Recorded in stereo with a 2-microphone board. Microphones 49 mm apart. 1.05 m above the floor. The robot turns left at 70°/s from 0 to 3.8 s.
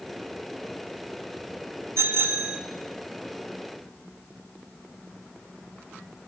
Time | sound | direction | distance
2.0 | a bicycle bell | 105° right | 2.5 m